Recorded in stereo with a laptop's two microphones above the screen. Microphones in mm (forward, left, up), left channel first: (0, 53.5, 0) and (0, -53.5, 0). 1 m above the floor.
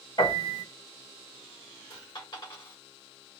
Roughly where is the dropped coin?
Left.